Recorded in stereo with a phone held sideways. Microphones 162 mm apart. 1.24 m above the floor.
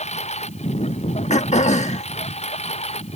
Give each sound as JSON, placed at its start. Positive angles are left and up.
{"t": 0.0, "sound": "a lawn mower", "side_deg": 40}
{"t": 1.3, "sound": "throat clearing", "side_deg": 45}